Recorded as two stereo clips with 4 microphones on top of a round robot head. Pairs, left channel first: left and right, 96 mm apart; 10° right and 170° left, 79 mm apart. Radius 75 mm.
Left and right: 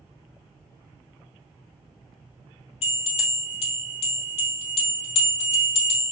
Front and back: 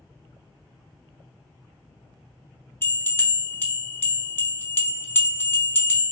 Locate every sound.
2.8 s a bell: 55° left, 1.0 m